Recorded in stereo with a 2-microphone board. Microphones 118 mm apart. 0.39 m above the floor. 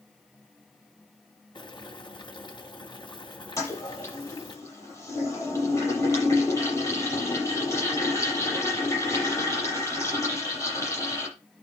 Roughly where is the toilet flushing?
Left.